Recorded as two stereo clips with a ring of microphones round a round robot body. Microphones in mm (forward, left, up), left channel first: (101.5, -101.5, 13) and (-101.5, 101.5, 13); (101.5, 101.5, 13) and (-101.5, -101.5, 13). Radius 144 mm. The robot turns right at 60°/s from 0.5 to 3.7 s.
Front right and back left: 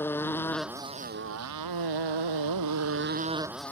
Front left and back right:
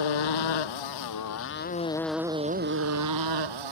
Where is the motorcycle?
40° left; by 3.7 s 130° right.